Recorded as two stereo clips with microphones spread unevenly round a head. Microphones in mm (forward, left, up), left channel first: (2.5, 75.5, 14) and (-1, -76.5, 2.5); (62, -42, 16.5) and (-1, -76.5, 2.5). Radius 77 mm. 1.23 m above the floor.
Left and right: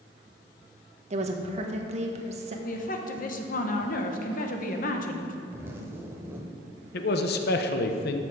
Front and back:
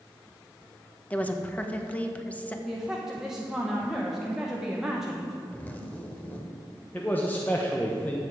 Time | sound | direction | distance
1.1 | a woman speaking | 45° right | 1.2 m
2.6 | a woman speaking | 125° left | 1.1 m
5.5 | a zipper | 15° right | 1.2 m
6.9 | a man speaking | 110° left | 0.8 m